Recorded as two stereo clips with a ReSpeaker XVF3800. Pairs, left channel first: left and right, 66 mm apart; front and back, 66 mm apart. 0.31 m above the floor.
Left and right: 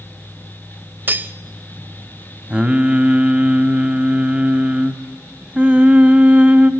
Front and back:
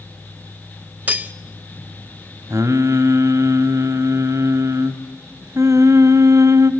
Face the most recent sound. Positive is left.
turn(degrees=-155)